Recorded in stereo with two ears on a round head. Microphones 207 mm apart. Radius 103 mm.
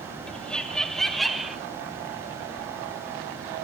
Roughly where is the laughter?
Centre.